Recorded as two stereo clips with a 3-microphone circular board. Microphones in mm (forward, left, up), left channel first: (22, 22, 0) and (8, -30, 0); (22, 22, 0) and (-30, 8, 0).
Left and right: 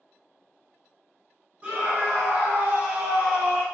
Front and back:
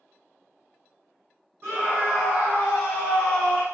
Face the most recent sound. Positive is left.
turn(degrees=-10)